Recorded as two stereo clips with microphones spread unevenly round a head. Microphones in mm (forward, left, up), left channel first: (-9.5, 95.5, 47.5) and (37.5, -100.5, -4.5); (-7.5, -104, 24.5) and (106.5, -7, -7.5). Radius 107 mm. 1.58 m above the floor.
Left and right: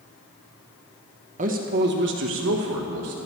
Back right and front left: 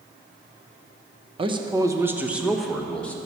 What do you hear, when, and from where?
1.4 s a man speaking: 15° right, 1.1 m; by 3.2 s 60° right, 1.6 m